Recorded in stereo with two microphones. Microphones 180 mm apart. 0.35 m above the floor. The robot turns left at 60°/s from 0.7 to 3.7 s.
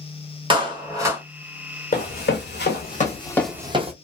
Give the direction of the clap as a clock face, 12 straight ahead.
5 o'clock.